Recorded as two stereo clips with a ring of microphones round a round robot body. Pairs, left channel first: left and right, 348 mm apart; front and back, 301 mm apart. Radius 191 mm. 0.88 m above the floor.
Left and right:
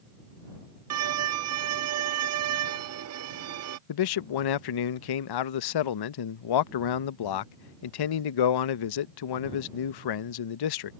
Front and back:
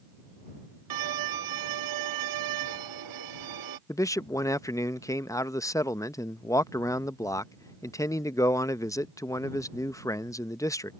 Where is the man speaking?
80° left.